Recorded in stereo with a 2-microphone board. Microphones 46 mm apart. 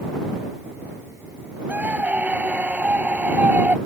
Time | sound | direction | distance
1.7 | a scream | 35° right (ahead or behind) | ?